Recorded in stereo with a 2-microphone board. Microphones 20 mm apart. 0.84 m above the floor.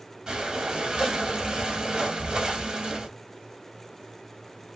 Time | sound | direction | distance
0.3 | breathing | 40° right (ahead or behind) | 1.0 m